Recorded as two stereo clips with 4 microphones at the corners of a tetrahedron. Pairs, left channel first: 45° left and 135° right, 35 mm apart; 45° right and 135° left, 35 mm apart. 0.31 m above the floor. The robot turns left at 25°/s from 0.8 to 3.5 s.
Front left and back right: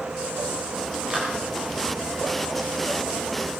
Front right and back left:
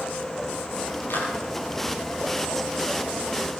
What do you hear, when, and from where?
1.1 s a clap: 70° right, 6 m; by 1.3 s 75° right, 6 m